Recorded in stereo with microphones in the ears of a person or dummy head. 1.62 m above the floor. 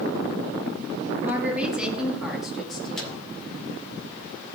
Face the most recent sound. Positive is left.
turn(degrees=5)  # may be behind; listen again after turning